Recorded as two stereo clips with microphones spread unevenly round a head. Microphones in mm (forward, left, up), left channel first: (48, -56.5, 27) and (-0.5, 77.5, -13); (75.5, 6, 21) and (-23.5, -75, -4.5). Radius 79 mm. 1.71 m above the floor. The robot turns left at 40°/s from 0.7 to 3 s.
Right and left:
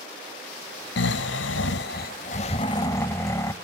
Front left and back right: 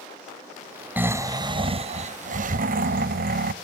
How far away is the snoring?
About 0.6 m.